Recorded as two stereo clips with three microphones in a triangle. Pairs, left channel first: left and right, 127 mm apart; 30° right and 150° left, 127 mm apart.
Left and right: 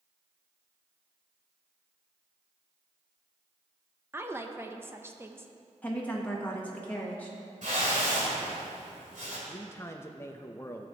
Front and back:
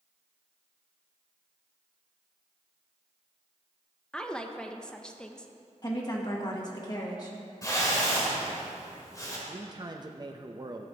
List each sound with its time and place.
4.1 s a woman speaking: 100° right, 0.6 m
5.8 s a woman speaking: 15° left, 1.1 m
7.6 s a whoosh: 95° right, 2.5 m
9.5 s a man speaking: 140° left, 0.6 m